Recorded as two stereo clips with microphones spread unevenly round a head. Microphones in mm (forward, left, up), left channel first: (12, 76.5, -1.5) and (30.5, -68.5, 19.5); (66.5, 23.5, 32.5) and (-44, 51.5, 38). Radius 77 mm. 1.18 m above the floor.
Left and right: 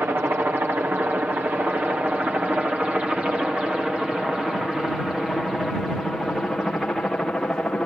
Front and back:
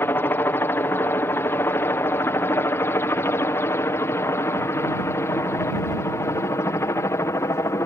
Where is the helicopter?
15° right; by 7.9 s 20° left.